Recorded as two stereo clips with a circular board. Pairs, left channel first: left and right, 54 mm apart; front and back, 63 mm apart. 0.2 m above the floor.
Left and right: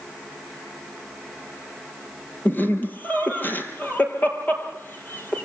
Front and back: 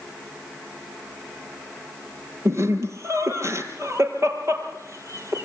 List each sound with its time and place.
2.5 s laughter: 140° left, 5.5 m